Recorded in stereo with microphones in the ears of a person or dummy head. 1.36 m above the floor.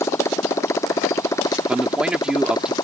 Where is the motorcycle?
15° left (ahead or behind); by 2.9 s 20° left (ahead or behind).